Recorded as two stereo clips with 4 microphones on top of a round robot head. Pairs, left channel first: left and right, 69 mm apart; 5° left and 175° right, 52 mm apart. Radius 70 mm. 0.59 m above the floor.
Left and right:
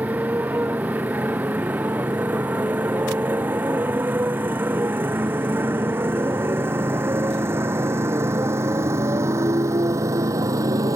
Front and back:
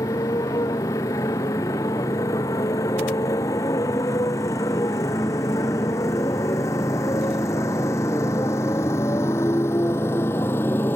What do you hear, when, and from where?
0.0 s a motorcycle: 20° right; by 10.9 s 50° right